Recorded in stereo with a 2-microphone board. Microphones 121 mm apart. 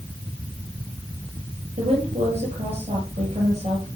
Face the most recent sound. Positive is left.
turn(degrees=-65)  # may be behind; listen again after turning